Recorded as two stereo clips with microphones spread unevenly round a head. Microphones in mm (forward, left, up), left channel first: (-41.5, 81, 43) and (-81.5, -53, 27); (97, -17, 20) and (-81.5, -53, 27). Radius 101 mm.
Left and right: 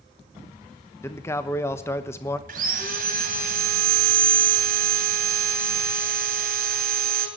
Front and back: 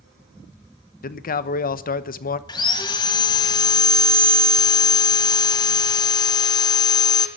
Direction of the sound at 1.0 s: Straight ahead.